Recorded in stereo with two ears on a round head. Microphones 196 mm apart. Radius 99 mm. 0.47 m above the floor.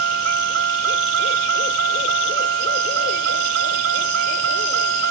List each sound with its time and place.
0.0 s a vehicle: 60° right (ahead or behind)